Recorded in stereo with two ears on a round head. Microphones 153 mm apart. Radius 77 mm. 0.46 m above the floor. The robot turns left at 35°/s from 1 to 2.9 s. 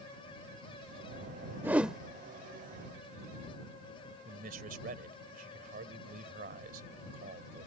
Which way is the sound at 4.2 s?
55° right (ahead or behind).